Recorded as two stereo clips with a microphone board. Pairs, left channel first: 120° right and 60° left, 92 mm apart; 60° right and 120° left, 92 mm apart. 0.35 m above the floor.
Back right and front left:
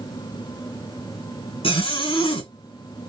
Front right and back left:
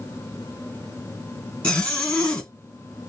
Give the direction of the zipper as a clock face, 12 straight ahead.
5 o'clock.